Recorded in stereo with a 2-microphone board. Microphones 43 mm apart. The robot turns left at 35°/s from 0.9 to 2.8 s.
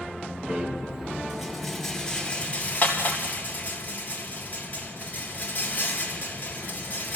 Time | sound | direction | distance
0.5 | a rattle | 20° right (ahead or behind) | 3.5 m